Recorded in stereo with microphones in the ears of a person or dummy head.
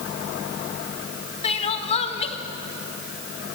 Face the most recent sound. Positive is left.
turn(degrees=35)  # may be behind; listen again after turning